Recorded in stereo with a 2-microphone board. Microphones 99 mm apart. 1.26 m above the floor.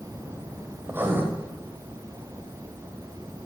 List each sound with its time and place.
0.8 s writing: 20° right (ahead or behind), 6 m